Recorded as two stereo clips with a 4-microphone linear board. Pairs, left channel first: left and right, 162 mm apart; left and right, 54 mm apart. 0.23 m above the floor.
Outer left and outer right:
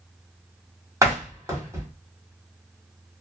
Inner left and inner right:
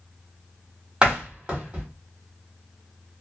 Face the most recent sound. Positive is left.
turn(degrees=-20)  # may be behind; listen again after turning